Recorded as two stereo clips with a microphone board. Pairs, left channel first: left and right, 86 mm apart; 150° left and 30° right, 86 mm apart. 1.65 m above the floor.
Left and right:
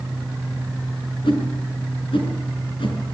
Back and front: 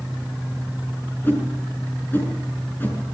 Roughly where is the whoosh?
Left.